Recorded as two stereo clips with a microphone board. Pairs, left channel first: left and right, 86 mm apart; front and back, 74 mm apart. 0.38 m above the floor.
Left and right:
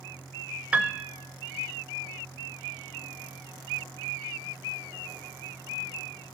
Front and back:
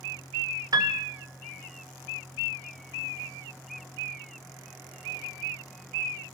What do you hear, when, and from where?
0.7 s a piano: 165° right, 0.5 m